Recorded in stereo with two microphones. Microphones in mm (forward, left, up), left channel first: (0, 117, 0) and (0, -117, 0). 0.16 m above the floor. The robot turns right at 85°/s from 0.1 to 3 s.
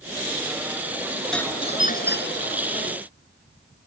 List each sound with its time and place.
1.3 s a doorbell: 5° left; by 2.6 s 110° left